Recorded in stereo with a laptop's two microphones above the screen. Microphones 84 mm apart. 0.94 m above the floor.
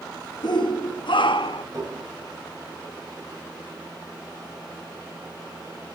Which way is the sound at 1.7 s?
45° right (ahead or behind).